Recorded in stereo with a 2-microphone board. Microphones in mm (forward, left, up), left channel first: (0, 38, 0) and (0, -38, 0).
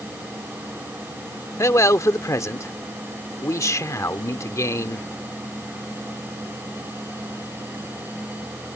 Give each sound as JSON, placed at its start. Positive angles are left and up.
{"t": 1.6, "sound": "a man speaking", "side_deg": 45}